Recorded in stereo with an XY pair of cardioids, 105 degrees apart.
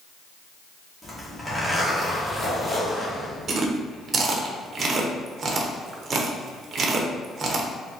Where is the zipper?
15° left, 1.7 m.